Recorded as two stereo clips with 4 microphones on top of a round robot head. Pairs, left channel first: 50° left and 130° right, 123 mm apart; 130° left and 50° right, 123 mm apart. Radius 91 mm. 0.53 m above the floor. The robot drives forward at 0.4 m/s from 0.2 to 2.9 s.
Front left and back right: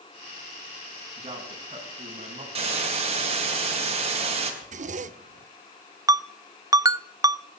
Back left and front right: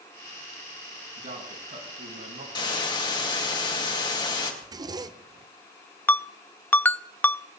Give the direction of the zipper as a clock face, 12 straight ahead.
4 o'clock.